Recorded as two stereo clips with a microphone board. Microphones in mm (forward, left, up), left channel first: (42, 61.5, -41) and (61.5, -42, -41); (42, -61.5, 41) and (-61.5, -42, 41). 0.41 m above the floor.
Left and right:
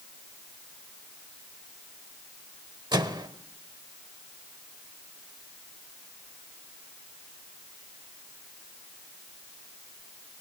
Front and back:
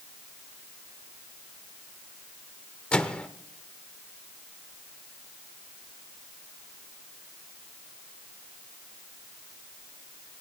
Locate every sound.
2.9 s a microwave: 90° right, 0.9 m